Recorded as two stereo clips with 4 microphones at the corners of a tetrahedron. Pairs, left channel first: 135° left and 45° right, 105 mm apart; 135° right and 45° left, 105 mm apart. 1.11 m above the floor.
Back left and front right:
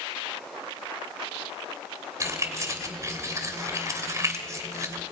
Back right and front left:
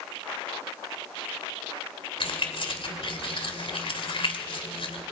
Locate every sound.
2.2 s keys jangling: 105° right, 2.5 m